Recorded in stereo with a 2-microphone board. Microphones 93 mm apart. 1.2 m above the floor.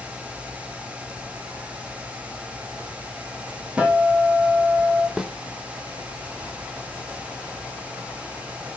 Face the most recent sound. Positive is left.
turn(degrees=-5)  # may be behind; listen again after turning